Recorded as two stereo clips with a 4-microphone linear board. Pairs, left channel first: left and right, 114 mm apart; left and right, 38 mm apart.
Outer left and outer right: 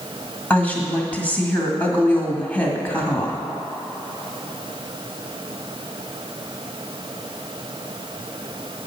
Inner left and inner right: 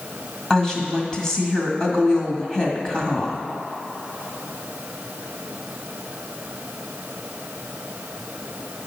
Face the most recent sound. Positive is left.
turn(degrees=15)  # may be behind; listen again after turning